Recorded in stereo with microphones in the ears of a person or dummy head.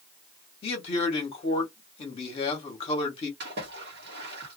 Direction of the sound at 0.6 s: 35° left (ahead or behind).